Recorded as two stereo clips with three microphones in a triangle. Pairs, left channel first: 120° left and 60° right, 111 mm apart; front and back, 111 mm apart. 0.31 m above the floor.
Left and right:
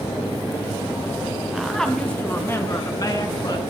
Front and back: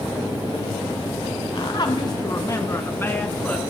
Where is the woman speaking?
25° left, 1.9 m; by 3.6 s 75° left, 3 m.